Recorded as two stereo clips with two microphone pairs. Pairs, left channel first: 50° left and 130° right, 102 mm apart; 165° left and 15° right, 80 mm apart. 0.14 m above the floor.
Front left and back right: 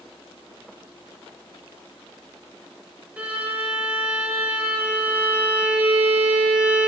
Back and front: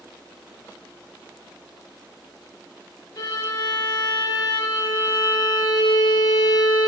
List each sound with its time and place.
3.2 s a violin: 160° left, 0.6 m